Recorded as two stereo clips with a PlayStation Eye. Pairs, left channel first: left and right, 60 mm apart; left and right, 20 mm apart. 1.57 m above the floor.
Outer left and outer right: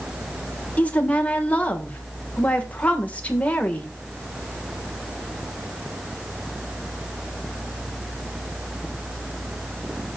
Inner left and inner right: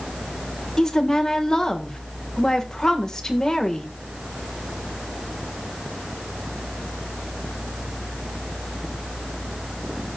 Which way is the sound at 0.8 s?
25° left (ahead or behind).